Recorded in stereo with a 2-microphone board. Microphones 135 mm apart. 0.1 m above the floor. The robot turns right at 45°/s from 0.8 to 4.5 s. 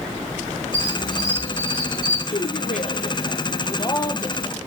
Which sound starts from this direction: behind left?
A squeak, at 0.7 s.